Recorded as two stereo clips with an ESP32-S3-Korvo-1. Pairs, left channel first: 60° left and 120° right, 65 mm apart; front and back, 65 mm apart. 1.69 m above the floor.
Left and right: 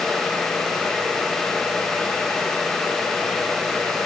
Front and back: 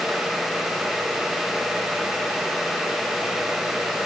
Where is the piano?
No piano in this recording.